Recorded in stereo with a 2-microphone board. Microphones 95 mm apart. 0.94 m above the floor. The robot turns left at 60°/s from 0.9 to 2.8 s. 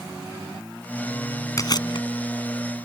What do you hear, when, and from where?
1.6 s chewing: 35° left (ahead or behind); by 2.1 s 65° left (ahead or behind)